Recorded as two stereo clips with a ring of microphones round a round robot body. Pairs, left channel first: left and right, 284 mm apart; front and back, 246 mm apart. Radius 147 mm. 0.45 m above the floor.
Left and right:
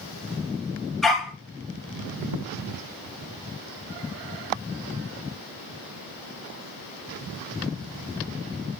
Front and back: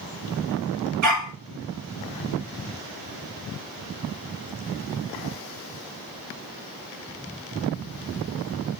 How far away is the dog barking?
About 3 m.